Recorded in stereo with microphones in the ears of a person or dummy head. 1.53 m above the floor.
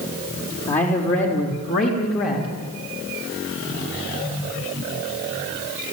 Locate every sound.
0.7 s a man speaking: 35° left (ahead or behind), 4.5 m; by 2.5 s 45° left (ahead or behind), 3.5 m